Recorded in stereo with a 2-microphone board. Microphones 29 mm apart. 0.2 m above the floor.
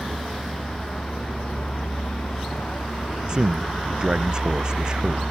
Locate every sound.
0.0 s a vehicle: 40° left (ahead or behind); by 5.3 s 85° left
3.3 s a man speaking: 30° right (ahead or behind)